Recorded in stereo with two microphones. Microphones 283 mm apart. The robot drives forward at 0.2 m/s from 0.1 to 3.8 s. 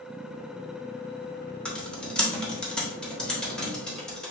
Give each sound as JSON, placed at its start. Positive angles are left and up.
{"t": 1.6, "sound": "typing on a keyboard", "side_deg": 5, "distance_m": 0.8}